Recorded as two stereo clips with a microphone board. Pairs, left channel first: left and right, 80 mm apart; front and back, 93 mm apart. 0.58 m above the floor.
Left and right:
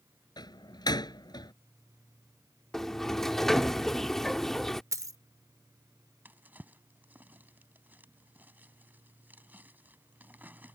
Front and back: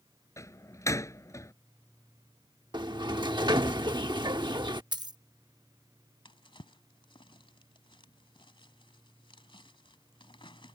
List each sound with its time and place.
0.4 s a door slam: 60° left
2.7 s a sliding door: 175° left
4.9 s a dropped coin: 135° right
6.2 s a drawer: 20° right